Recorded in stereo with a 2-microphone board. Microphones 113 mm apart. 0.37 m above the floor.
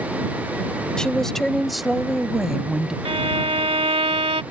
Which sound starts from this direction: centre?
A woman speaking, at 1.0 s.